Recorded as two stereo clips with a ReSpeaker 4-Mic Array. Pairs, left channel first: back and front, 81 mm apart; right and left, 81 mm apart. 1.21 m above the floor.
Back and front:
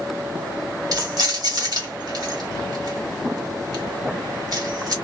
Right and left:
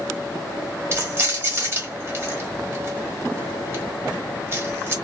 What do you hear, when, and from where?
0.9 s keys jangling: 35° left, 1.4 m